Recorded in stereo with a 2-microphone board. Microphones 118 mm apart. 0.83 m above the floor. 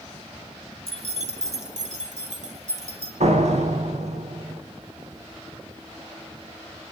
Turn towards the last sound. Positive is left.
turn(degrees=-75)  # may be behind; listen again after turning